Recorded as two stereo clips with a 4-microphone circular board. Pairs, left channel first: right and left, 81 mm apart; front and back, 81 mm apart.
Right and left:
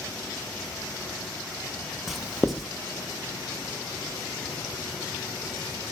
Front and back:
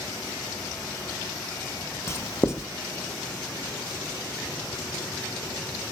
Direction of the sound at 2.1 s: Straight ahead.